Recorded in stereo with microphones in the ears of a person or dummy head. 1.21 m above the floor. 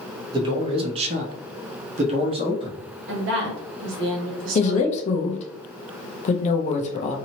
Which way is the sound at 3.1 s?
65° right (ahead or behind).